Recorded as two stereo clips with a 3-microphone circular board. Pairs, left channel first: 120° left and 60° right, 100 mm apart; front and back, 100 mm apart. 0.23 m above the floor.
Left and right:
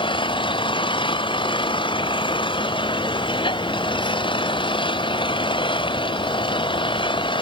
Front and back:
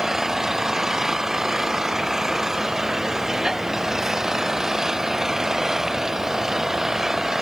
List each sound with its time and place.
0.0 s an engine running: 95° left